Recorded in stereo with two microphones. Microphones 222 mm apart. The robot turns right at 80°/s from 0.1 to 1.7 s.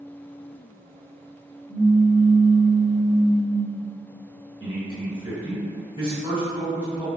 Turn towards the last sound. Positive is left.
turn(degrees=-20)  # may be behind; listen again after turning